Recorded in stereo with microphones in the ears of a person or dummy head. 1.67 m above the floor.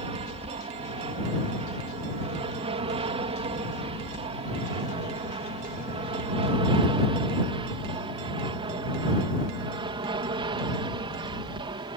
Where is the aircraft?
30° right (ahead or behind); by 12.0 s 25° right (ahead or behind).